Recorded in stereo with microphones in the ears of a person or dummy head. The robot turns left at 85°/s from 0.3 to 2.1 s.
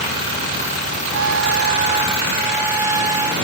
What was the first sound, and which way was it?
A trumpet, 80° right.